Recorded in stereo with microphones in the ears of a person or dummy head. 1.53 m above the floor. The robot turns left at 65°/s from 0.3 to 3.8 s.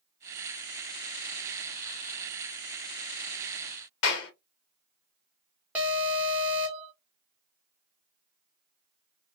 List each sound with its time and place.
4.0 s a clap: 75° left (ahead or behind), 1.1 m
5.8 s an alarm: 10° right (ahead or behind), 1.0 m